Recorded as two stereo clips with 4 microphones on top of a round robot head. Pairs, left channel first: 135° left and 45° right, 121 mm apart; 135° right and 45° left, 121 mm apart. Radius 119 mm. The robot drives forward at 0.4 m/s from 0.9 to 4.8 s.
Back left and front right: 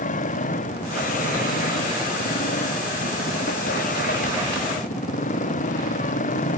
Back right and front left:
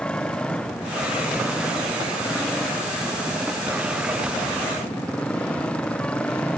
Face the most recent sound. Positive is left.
turn(degrees=145)